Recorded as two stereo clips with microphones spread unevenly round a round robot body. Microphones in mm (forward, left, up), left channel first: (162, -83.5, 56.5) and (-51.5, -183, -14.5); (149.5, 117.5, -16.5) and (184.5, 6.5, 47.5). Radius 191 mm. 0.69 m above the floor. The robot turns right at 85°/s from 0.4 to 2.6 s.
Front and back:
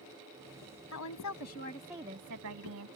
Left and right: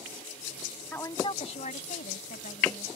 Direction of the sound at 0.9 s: 30° left.